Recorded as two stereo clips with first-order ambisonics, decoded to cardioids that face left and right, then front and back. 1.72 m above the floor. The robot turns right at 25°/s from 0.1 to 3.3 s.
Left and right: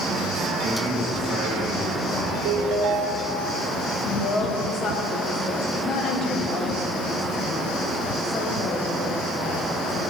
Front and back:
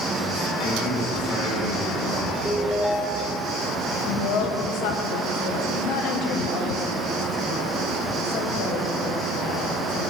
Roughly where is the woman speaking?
Ahead left.